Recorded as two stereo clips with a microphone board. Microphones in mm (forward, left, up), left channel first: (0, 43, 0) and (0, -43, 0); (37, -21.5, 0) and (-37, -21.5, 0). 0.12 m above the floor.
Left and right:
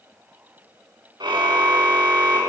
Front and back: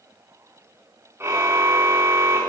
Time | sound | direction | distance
1.2 | a car horn | 125° right | 5.5 m